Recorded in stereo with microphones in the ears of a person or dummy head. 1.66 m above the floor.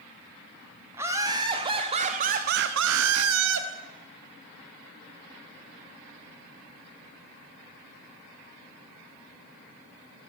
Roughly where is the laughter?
Centre.